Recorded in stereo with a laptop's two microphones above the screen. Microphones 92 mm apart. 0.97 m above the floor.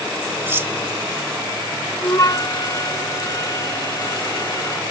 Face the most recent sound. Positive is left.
turn(degrees=40)  # may be behind; listen again after turning